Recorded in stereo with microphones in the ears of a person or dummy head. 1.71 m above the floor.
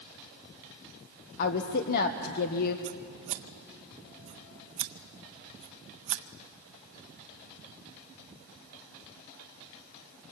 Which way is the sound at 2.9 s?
35° right (ahead or behind).